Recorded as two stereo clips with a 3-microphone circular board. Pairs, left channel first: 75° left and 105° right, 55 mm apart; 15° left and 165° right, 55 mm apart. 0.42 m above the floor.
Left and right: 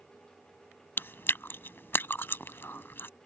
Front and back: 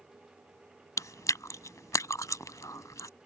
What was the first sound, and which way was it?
Chewing, 25° left.